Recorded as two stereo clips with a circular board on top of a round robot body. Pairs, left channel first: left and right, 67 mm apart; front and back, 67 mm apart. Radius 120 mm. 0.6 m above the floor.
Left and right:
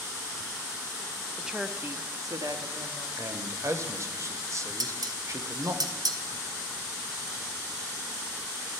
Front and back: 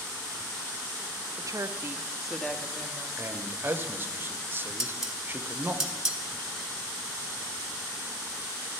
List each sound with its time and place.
1.4 s a woman speaking: 175° right, 1.0 m; by 3.1 s 60° right, 1.7 m
3.2 s a man speaking: 125° right, 1.1 m
4.8 s dishes clattering: 95° right, 1.1 m